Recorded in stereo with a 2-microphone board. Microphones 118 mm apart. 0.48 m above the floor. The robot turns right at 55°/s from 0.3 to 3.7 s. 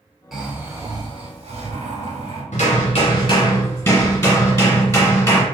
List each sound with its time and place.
0.3 s snoring: straight behind, 0.9 m; by 2.4 s 60° right, 0.9 m
2.5 s hammering: 90° left, 1.6 m; by 5.4 s 155° left, 1.6 m